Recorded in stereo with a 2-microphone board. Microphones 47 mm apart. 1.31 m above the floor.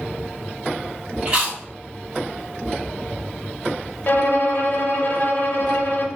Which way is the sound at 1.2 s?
30° right (ahead or behind).